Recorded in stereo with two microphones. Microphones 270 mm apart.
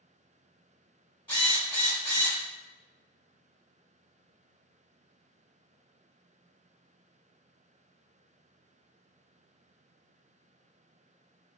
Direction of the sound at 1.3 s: 20° left (ahead or behind).